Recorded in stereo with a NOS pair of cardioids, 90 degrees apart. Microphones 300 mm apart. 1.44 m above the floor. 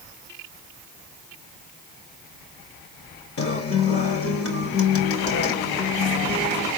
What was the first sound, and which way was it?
A guitar, 50° left.